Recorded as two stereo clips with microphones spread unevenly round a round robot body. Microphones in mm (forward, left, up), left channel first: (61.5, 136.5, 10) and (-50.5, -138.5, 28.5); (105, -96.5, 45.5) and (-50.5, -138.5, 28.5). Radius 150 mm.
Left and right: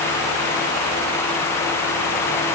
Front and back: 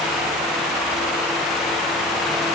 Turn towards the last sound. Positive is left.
No sound to turn to.